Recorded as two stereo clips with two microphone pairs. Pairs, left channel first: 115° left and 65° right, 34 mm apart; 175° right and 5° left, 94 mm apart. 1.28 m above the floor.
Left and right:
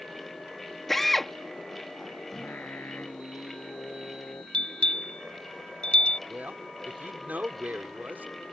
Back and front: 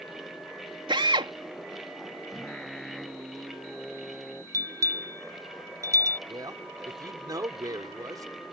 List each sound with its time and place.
0.9 s a drill: 30° left
2.3 s singing: 100° left
4.5 s a bell: 60° left
6.3 s a man speaking: 40° right